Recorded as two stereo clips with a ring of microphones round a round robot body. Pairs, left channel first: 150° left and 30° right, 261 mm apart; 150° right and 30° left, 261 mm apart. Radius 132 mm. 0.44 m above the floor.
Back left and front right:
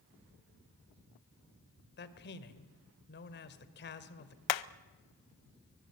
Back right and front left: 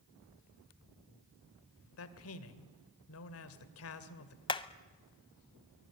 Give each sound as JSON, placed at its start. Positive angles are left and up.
{"t": 2.0, "sound": "a man speaking", "azimuth_deg": -170, "distance_m": 2.0}
{"t": 4.5, "sound": "hammering", "azimuth_deg": 135, "distance_m": 0.7}